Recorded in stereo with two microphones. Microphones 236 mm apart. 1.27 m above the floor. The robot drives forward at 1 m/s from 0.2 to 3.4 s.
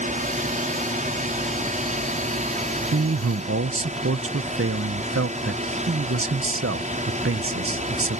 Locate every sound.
0.0 s a drone: 30° right (ahead or behind)
2.9 s a man speaking: 75° right (ahead or behind); by 8.2 s 60° right (ahead or behind)